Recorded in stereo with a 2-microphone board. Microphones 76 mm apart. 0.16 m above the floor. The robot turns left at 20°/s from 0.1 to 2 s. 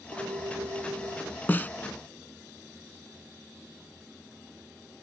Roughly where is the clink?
Right.